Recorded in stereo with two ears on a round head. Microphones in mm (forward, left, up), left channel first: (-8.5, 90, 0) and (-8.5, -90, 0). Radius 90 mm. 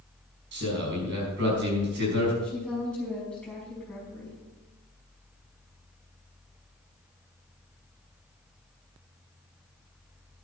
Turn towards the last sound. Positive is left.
turn(degrees=5)  # may be behind; listen again after turning